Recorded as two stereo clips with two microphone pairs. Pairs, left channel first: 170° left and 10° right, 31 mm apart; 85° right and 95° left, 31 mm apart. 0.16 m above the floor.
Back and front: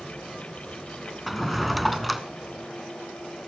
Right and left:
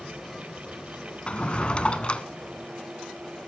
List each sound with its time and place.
1.3 s a drawer: 105° right, 0.7 m